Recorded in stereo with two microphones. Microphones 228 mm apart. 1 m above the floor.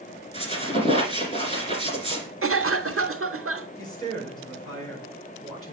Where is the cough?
70° right (ahead or behind), 0.7 m.